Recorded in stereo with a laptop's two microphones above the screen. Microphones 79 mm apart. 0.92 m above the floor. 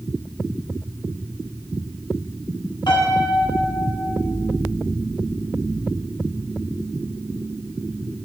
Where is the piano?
65° left (ahead or behind), 1.2 m.